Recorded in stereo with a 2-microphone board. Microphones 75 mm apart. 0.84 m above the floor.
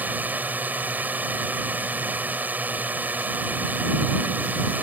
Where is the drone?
20° right (ahead or behind).